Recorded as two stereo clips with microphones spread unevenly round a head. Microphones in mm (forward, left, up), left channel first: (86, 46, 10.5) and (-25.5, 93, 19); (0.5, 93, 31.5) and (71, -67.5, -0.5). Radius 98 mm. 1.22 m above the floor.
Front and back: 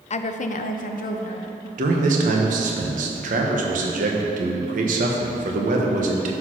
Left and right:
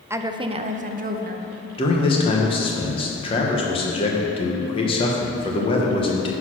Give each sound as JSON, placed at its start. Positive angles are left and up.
{"t": 0.1, "sound": "a woman speaking", "azimuth_deg": 15, "distance_m": 0.6}
{"t": 1.8, "sound": "a man speaking", "azimuth_deg": 180, "distance_m": 1.0}